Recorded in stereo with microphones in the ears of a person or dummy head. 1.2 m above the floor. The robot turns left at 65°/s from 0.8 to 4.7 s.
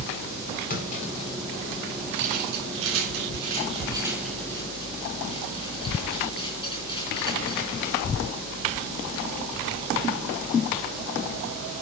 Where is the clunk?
45° left (ahead or behind), 4.5 m; by 1.9 s 25° right (ahead or behind), 4.5 m.